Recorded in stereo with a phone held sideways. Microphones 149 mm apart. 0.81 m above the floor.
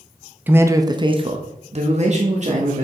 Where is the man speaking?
15° right (ahead or behind), 0.9 m; by 2.9 s 50° right (ahead or behind), 1.7 m.